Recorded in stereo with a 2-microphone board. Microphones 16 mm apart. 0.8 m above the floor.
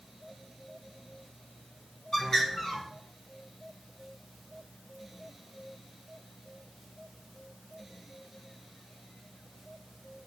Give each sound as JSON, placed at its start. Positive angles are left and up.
{"t": 2.1, "sound": "a bird", "side_deg": 25, "distance_m": 2.0}